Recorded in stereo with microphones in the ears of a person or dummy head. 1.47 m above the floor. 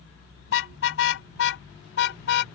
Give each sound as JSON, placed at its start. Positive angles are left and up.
{"t": 0.5, "sound": "a car horn", "side_deg": 80}